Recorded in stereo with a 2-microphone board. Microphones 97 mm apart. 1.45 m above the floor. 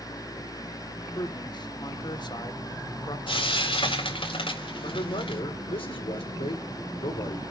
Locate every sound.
1.1 s a man speaking: 45° left (ahead or behind), 1.2 m
3.3 s frying: 65° left (ahead or behind), 4 m
4.8 s a man speaking: 70° left (ahead or behind), 5 m